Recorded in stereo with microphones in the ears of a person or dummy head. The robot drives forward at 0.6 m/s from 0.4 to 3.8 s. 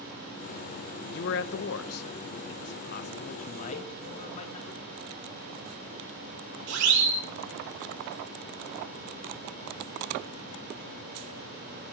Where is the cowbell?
40° left (ahead or behind), 0.7 m; by 4.0 s 35° left (ahead or behind), 0.7 m.